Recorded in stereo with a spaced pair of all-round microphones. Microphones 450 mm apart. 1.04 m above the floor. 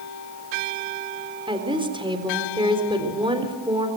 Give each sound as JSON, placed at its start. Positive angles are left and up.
{"t": 1.5, "sound": "a woman speaking", "side_deg": -10, "distance_m": 3.5}